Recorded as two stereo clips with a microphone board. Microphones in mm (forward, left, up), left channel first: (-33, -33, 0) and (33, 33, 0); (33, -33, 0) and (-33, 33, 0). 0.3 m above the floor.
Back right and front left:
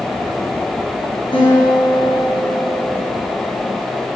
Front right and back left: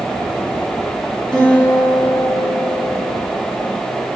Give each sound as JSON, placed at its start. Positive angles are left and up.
{"t": 1.3, "sound": "a guitar", "azimuth_deg": -130, "distance_m": 3.0}